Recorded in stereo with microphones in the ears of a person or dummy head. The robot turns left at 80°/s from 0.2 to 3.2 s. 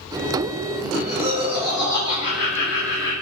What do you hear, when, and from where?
0.8 s laughter: 110° right, 0.8 m; by 3.1 s 70° left, 0.8 m